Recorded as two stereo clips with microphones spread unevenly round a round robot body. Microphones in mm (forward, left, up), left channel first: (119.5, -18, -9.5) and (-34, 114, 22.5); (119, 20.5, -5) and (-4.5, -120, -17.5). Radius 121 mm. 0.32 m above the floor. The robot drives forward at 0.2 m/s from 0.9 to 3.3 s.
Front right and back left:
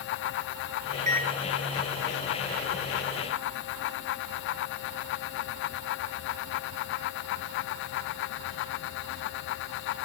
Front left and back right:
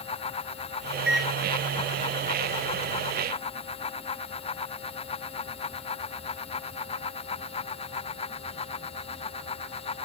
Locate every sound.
1.1 s a microwave: 140° left, 1.2 m; by 1.3 s 145° left, 1.2 m